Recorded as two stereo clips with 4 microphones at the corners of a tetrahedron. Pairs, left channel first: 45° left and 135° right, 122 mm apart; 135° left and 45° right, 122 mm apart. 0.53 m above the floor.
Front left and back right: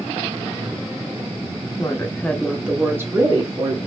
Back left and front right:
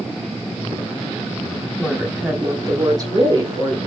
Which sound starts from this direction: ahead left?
A woman speaking, at 1.8 s.